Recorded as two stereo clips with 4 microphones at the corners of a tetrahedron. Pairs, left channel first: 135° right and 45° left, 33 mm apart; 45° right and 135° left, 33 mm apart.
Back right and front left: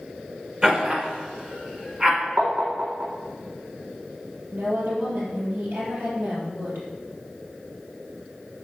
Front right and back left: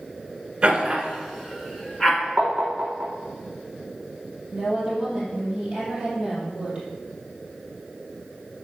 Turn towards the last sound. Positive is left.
turn(degrees=60)